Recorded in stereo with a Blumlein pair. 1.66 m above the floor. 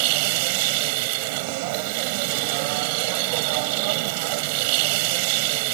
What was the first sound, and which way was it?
A machine running, 45° right.